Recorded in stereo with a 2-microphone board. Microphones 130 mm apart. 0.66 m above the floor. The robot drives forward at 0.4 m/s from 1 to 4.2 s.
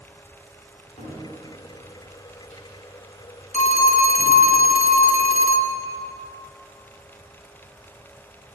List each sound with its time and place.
1.0 s a cupboard door: 55° left (ahead or behind), 5 m; by 4.4 s 65° left (ahead or behind), 4.5 m
3.5 s a phone ringing: 65° left (ahead or behind), 0.9 m; by 5.8 s 75° left (ahead or behind), 0.8 m